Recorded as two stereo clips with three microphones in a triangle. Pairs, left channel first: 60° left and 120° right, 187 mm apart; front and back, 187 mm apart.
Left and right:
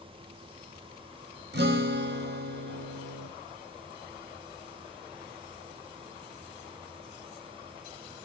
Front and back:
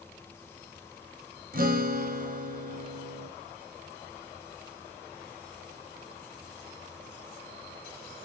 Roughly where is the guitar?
Behind right.